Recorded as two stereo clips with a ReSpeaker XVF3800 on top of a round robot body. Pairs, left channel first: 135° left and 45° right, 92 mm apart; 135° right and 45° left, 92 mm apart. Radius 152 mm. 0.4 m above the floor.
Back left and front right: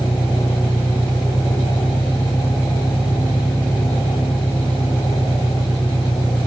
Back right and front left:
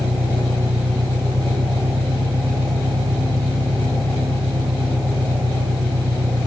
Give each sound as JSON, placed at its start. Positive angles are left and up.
{"t": 0.0, "sound": "an engine running", "azimuth_deg": 60}